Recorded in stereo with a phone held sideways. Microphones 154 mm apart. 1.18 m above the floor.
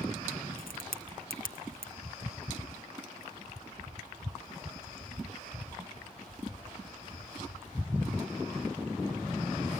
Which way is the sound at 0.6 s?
75° left (ahead or behind).